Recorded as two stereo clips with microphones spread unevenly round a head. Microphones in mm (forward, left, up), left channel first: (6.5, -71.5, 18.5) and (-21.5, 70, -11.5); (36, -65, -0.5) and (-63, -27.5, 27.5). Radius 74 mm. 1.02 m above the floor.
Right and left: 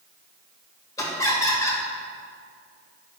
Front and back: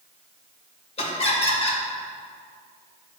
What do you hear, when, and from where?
1.0 s laughter: 5° right, 1.9 m